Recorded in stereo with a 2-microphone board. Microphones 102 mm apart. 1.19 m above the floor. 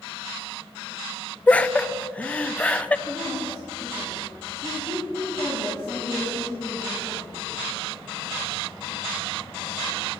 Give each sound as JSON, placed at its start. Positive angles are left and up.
{"t": 1.5, "sound": "laughter", "side_deg": 15, "distance_m": 0.6}
{"t": 3.1, "sound": "a woman speaking", "side_deg": 25, "distance_m": 3.0}